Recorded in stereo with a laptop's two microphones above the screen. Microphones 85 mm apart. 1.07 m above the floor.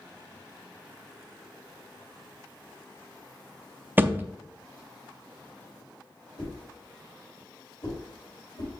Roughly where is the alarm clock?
No alarm clock in this recording.